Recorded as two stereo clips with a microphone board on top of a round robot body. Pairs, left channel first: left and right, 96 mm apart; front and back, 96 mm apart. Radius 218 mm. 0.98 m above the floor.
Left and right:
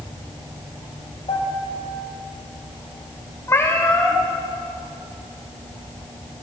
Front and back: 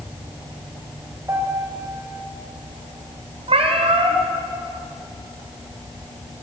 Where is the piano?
115° left, 4 m.